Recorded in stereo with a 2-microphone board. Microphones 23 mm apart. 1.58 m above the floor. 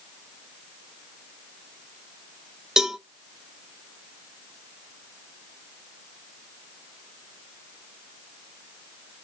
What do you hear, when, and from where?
2.8 s a cowbell: 30° right (ahead or behind), 1.0 m